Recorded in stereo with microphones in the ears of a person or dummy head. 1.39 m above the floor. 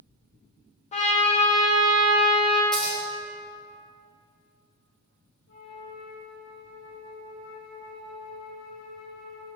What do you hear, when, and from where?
0.9 s a trumpet: 40° left (ahead or behind), 0.8 m
2.7 s scissors: 5° left (ahead or behind), 0.8 m
5.5 s a flute: 65° left (ahead or behind), 0.9 m